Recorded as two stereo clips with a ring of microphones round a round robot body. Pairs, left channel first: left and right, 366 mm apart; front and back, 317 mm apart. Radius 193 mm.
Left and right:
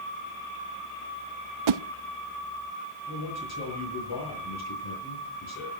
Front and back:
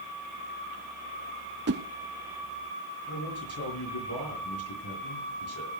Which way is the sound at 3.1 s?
45° left.